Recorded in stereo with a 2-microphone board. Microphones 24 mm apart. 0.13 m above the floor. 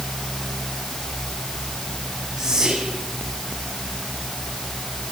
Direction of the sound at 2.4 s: 25° right (ahead or behind).